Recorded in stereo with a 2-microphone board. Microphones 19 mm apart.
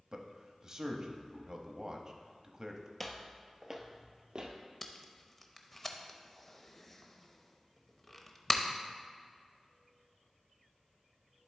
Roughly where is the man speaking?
Right.